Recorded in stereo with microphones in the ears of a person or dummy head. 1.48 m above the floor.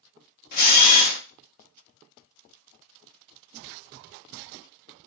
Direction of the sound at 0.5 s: 55° left (ahead or behind).